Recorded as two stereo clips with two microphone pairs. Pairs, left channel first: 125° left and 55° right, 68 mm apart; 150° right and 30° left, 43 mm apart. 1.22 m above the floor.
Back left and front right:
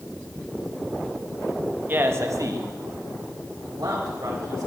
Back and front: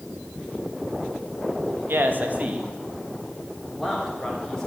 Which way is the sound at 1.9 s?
5° left.